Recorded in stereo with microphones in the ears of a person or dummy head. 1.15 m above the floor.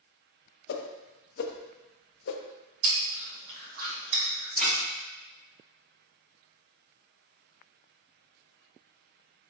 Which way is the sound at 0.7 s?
55° left (ahead or behind).